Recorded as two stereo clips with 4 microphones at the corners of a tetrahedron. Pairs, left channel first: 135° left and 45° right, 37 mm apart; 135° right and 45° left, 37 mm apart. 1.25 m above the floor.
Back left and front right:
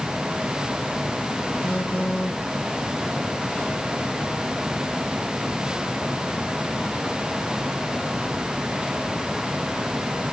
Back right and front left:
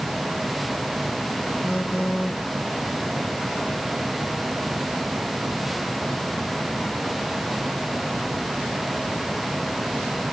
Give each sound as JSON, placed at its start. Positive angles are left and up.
{"t": 1.6, "sound": "a phone buzzing", "azimuth_deg": -45, "distance_m": 4.5}